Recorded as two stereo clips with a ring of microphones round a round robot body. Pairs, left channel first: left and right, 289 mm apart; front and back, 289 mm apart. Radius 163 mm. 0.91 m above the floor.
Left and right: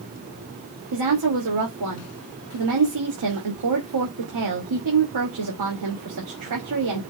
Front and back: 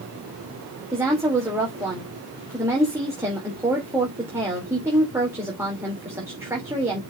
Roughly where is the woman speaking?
Right.